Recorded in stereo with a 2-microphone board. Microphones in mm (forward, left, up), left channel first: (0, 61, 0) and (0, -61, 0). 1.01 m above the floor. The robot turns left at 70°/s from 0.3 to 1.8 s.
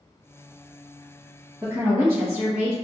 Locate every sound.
1.6 s a woman speaking: 25° right (ahead or behind), 1.1 m; by 2.7 s 15° right (ahead or behind), 1.1 m